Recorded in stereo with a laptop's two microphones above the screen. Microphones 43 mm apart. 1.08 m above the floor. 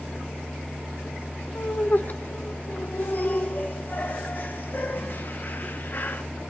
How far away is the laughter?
About 0.7 m.